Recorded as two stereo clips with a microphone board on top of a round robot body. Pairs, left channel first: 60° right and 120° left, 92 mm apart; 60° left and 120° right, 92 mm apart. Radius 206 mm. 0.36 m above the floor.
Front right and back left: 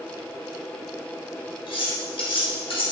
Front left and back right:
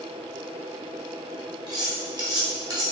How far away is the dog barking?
No dog barking in this recording.